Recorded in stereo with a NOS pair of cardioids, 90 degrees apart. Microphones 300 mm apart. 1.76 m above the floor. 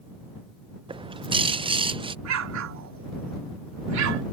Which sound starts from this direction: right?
An explosion, at 2.2 s.